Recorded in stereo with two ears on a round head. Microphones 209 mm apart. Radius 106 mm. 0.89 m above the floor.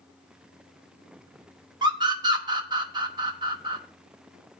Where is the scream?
20° right (ahead or behind), 0.9 m.